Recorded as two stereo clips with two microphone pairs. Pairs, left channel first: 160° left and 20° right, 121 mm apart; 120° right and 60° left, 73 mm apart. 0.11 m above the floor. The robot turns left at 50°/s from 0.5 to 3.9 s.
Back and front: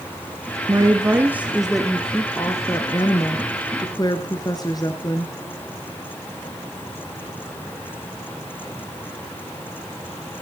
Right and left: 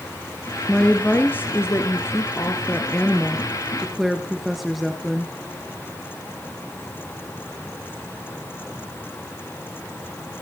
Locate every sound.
0.7 s a woman speaking: 55° right, 1.7 m; by 5.3 s 145° left, 1.7 m